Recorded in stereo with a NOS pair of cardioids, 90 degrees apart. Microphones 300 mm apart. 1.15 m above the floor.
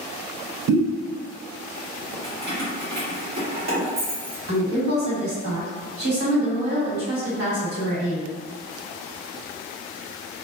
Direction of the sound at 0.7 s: 70° right.